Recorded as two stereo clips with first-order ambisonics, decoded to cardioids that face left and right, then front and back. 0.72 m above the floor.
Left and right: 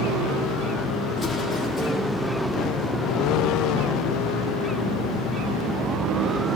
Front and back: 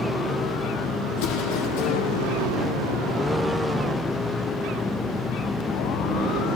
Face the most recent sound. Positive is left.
turn(degrees=5)